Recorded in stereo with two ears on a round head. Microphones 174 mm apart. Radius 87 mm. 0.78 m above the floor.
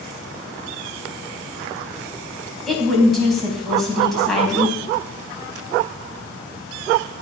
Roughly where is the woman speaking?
Centre.